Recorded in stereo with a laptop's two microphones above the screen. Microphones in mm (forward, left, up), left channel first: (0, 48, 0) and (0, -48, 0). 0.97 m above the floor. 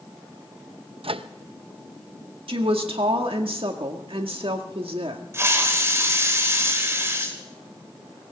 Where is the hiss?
30° right (ahead or behind), 3 m.